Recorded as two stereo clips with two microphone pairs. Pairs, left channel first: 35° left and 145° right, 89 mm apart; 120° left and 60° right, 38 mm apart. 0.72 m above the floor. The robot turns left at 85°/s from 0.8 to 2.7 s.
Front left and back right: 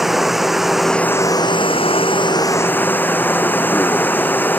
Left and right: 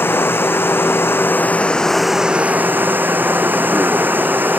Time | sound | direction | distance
0.0 | running water | 130° left | ?